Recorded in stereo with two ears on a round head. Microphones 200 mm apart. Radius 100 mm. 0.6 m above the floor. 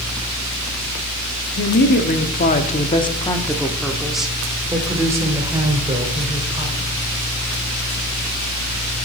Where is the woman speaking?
55° left (ahead or behind), 1.2 m; by 6.9 s 25° right (ahead or behind), 2.5 m.